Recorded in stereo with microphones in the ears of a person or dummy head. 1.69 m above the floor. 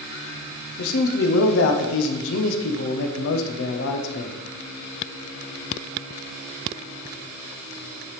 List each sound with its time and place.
0.8 s a man speaking: 70° left (ahead or behind), 0.9 m